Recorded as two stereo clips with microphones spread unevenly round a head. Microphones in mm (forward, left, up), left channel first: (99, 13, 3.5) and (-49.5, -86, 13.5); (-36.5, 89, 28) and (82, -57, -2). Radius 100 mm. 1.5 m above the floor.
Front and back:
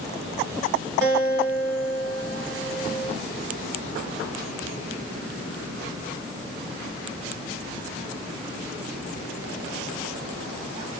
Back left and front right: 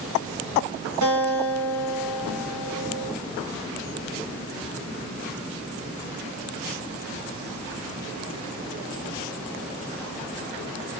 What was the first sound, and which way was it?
A guitar, 75° right.